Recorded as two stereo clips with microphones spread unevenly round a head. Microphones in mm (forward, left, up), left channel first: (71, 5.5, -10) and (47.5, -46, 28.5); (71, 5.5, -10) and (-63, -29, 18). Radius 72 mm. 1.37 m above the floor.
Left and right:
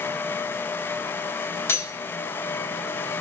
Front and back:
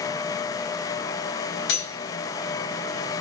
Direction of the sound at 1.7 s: 5° left.